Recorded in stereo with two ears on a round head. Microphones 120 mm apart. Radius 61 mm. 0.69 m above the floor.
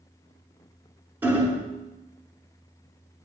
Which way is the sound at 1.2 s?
15° right (ahead or behind).